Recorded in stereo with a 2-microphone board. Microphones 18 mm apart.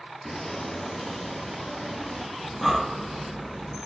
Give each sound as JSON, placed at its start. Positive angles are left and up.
{"t": 0.2, "sound": "footsteps", "side_deg": 20, "distance_m": 1.4}
{"t": 2.4, "sound": "breathing", "side_deg": 0, "distance_m": 1.2}